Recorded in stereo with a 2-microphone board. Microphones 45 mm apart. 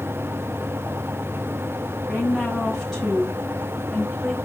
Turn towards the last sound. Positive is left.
turn(degrees=0)  # may be behind; listen again after turning